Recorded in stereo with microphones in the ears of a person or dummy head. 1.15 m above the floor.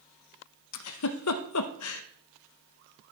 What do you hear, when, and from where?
0.7 s a giggle: 75° left (ahead or behind), 0.8 m